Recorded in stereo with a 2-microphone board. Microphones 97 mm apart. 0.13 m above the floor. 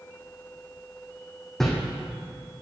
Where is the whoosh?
5° left (ahead or behind), 3 m.